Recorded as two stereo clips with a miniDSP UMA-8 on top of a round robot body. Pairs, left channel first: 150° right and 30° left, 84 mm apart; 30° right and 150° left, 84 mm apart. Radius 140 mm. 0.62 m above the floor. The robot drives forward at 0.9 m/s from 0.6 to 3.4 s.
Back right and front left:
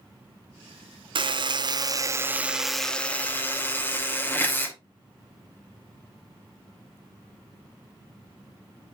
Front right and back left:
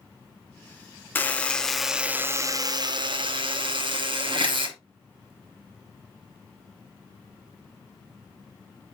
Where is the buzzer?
40° left, 1.3 m; by 4.8 s 145° left, 1.4 m.